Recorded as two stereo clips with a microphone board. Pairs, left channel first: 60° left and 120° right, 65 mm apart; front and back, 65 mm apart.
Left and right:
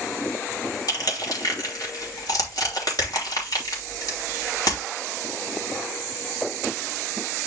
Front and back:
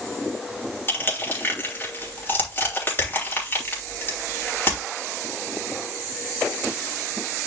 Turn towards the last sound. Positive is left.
turn(degrees=55)